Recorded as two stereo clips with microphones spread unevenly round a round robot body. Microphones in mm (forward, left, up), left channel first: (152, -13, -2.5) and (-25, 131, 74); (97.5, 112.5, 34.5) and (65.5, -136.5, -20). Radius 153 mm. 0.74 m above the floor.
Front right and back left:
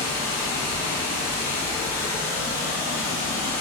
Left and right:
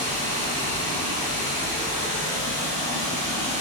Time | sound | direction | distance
0.0 | running water | 85° right | 0.7 m